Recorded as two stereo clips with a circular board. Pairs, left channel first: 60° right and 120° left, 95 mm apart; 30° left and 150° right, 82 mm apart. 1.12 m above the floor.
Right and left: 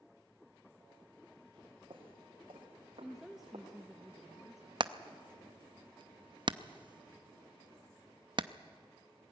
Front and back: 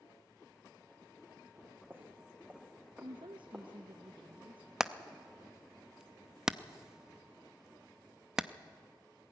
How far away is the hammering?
About 0.5 m.